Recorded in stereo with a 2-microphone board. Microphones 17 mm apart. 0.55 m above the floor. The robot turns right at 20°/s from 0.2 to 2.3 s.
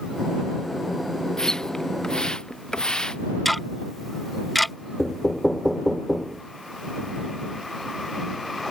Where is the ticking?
5° left (ahead or behind).